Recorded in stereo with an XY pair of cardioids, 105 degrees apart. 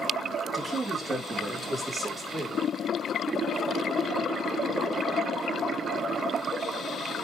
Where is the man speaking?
25° right, 4 m; by 2.6 s 5° right, 5.5 m.